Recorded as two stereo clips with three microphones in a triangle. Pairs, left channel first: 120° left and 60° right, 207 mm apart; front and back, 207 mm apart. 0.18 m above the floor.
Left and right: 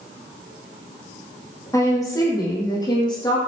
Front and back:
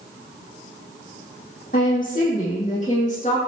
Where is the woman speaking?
45° left, 8 m; by 3.4 s 55° left, 7 m.